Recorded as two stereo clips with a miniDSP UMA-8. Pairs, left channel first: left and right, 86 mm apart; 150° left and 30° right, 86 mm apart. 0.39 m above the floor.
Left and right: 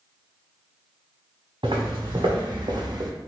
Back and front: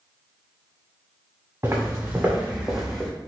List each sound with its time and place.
1.6 s footsteps: 90° right, 1.7 m; by 3.1 s 130° right, 0.9 m